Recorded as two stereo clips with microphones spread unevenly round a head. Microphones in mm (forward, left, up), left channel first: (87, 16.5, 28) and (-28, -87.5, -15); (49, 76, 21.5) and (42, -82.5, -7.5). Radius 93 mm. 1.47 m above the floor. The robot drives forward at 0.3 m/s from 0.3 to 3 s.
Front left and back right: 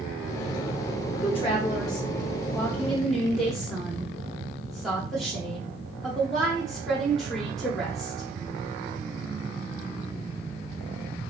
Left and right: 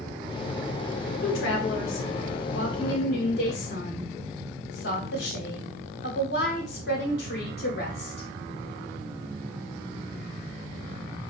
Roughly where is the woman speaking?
Left.